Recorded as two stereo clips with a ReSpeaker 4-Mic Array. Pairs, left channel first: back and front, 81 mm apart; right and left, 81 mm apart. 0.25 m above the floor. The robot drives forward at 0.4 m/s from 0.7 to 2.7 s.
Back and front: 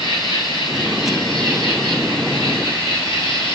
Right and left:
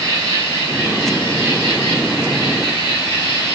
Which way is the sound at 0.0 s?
145° left.